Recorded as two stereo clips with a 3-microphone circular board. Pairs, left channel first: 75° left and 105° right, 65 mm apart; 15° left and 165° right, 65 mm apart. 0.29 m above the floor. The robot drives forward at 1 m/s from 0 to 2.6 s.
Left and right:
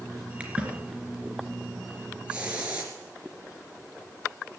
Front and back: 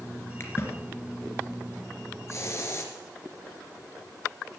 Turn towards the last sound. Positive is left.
turn(degrees=-35)